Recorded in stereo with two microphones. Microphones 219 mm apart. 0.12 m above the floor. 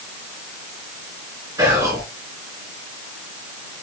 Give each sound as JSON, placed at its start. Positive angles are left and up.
{"t": 1.6, "sound": "whispering", "side_deg": -15, "distance_m": 1.7}